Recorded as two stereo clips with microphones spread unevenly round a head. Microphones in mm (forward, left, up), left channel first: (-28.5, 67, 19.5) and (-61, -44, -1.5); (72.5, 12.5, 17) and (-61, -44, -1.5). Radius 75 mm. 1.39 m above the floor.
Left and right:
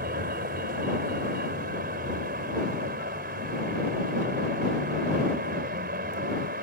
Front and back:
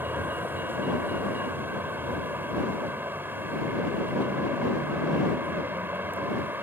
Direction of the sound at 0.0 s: 80° right.